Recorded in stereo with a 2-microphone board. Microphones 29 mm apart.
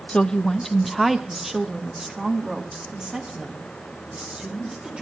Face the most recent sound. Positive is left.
turn(degrees=-30)  # may be behind; listen again after turning